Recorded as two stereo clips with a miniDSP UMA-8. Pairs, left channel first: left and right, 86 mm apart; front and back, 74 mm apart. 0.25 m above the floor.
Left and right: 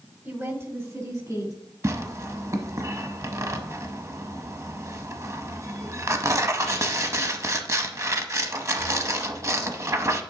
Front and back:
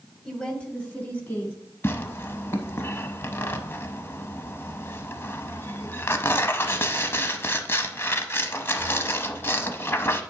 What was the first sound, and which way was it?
A woman speaking, 75° right.